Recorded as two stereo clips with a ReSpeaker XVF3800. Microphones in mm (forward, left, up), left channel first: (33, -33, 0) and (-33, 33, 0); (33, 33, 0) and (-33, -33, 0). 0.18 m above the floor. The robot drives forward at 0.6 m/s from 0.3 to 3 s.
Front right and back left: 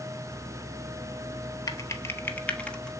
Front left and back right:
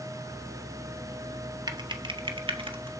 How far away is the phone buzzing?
I don't hear a phone buzzing.